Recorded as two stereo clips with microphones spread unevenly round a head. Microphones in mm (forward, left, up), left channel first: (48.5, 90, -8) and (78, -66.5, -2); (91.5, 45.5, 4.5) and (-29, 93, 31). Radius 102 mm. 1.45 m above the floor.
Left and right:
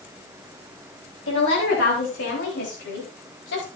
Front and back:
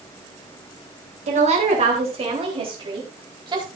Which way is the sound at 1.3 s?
130° left.